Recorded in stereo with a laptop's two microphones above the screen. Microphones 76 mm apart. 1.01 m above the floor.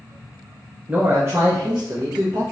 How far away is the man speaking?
About 0.5 m.